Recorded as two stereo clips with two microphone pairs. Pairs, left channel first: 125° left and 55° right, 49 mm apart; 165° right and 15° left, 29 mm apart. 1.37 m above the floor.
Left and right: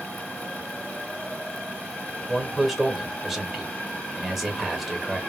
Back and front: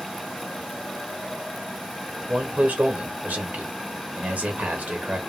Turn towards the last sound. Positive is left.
turn(degrees=25)